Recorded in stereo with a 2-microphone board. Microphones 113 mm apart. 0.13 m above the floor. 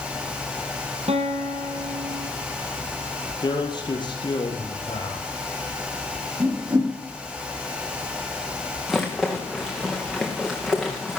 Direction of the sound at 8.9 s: Centre (ahead or behind).